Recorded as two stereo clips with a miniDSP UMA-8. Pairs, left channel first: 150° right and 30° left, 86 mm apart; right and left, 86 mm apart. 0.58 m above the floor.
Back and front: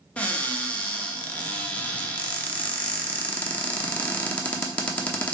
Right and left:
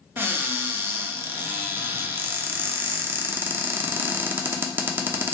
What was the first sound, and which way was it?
A cupboard door, 145° left.